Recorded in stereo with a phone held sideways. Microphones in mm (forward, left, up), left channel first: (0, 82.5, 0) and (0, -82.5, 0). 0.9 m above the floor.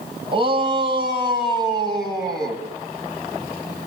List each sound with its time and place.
0.3 s a shout: 30° right (ahead or behind), 7.5 m; by 2.6 s 25° right (ahead or behind), 7.5 m